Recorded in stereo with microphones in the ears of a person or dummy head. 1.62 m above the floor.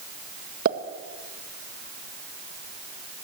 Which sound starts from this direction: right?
A pop, at 0.7 s.